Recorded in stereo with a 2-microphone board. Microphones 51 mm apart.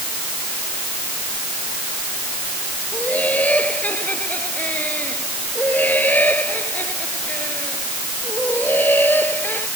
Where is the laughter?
30° left (ahead or behind); by 9.7 s 40° left (ahead or behind).